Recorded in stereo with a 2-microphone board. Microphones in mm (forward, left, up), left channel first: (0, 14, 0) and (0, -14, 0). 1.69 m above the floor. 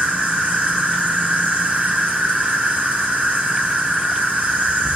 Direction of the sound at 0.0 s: 55° right (ahead or behind).